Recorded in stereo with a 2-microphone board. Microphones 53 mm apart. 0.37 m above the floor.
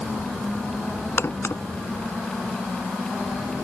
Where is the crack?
55° left (ahead or behind).